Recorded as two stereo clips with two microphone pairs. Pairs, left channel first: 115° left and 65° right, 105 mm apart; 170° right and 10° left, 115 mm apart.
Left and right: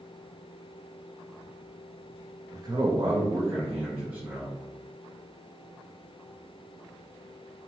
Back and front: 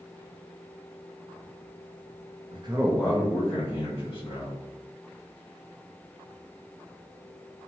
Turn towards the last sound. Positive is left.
turn(degrees=-135)